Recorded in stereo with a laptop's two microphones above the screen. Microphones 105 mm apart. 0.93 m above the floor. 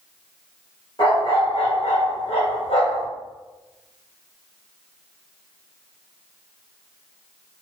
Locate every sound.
1.0 s a dog barking: 55° left (ahead or behind), 1.7 m; by 3.1 s 60° left (ahead or behind), 1.3 m